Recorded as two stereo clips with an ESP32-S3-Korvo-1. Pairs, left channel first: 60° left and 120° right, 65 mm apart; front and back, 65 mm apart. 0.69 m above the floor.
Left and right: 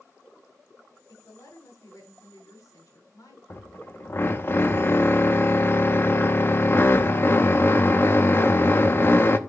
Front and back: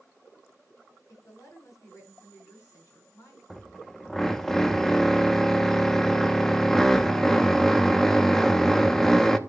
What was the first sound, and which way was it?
A woman speaking, 35° left.